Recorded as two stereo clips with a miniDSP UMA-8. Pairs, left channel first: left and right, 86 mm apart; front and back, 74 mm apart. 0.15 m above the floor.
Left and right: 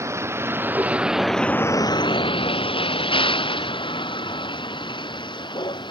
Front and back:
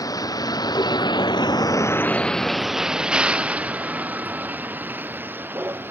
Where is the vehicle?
35° right; by 5.9 s 120° left.